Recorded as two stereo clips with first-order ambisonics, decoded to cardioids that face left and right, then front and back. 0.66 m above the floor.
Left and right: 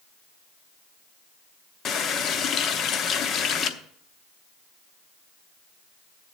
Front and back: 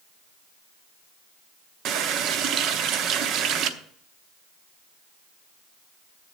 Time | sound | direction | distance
1.9 | a running tap | 140° left | 0.8 m